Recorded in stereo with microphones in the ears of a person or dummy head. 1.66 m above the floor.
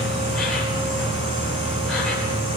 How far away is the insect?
About 9.5 m.